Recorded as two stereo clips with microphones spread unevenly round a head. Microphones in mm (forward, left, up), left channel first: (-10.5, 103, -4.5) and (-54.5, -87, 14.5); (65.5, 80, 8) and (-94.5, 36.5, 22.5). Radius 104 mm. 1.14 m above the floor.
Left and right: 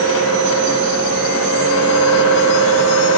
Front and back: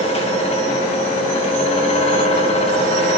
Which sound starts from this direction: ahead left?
A fan, at 0.0 s.